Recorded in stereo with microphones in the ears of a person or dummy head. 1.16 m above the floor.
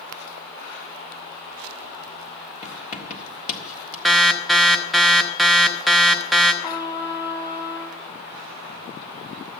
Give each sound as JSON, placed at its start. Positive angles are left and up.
{"t": 2.6, "sound": "writing", "side_deg": 45, "distance_m": 1.6}
{"t": 4.0, "sound": "an alarm", "side_deg": 0, "distance_m": 0.7}
{"t": 6.6, "sound": "a trumpet", "side_deg": 15, "distance_m": 1.4}